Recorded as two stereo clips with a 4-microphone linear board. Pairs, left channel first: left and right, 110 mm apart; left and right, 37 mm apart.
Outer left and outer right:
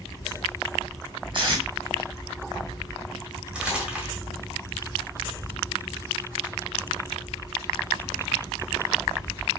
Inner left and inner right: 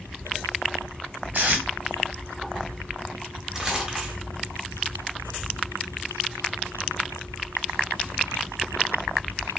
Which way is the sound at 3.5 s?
10° right (ahead or behind).